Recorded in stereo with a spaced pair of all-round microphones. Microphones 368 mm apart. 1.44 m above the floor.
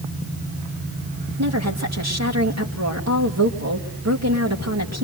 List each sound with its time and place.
1.4 s a woman speaking: 45° right (ahead or behind), 2.5 m